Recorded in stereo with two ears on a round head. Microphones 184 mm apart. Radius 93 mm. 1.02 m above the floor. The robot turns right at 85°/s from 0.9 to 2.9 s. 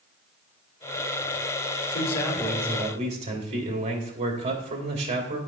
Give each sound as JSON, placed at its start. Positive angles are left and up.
{"t": 1.9, "sound": "a man speaking", "azimuth_deg": 130, "distance_m": 3.0}